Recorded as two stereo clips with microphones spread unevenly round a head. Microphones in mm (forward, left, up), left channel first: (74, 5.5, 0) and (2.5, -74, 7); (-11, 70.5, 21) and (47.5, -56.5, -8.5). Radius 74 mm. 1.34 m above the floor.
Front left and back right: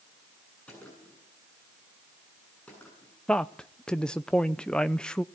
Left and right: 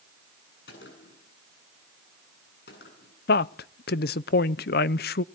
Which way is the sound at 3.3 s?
125° left.